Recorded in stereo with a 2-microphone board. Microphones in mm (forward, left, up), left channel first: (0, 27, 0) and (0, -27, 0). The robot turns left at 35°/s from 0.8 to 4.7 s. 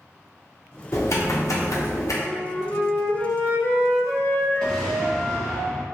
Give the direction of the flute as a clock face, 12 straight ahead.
7 o'clock.